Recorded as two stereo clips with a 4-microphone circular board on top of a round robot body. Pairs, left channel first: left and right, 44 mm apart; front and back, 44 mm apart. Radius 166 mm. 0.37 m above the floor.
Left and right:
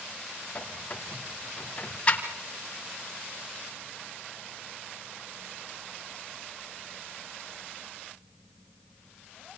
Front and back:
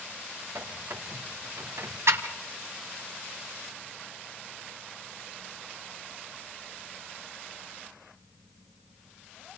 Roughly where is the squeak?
Behind left.